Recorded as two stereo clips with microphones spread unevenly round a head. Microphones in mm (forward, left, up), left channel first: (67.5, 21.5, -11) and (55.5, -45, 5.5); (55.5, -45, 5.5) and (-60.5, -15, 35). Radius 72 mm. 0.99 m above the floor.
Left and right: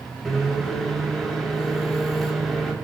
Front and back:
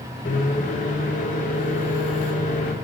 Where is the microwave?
5° right, 2.5 m.